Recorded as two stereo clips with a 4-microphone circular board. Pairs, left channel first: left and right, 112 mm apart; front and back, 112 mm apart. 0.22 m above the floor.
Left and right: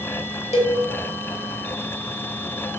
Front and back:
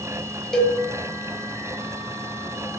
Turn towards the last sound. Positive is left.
turn(degrees=85)